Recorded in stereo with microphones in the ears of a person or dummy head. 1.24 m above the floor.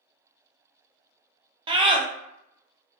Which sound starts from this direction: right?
A scream, at 1.7 s.